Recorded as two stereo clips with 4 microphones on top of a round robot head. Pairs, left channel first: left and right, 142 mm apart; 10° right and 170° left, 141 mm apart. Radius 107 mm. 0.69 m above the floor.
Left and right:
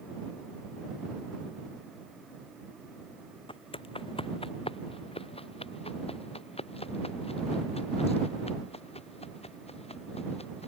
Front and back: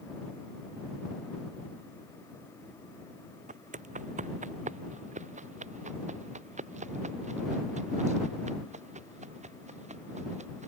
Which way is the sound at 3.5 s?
140° left.